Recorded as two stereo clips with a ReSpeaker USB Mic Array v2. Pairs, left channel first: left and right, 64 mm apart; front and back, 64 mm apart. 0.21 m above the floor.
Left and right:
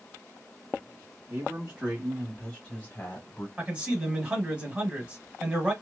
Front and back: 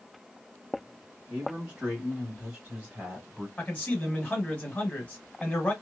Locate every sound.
1.3 s a man speaking: 115° right, 1.5 m; by 3.5 s 110° left, 1.7 m
3.6 s a man speaking: 40° right, 1.2 m